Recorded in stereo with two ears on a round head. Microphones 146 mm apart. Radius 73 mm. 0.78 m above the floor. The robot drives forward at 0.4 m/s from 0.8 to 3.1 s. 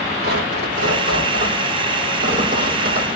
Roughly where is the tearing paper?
Right.